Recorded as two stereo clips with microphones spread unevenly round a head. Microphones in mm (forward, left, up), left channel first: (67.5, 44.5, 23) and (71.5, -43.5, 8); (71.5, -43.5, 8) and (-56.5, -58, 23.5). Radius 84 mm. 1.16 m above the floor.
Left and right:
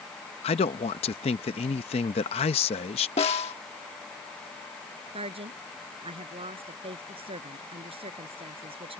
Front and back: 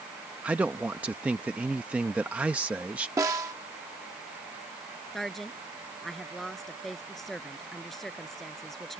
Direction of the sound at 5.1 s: 80° right.